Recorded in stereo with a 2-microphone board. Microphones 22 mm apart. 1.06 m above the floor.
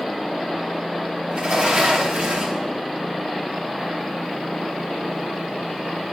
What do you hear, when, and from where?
1.3 s a sliding door: 55° right (ahead or behind), 2.5 m